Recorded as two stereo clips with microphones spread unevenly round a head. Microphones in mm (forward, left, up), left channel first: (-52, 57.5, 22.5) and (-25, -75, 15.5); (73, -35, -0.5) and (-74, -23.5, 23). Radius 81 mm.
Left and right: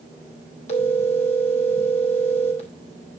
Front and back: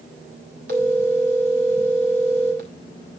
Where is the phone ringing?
140° left, 3 m.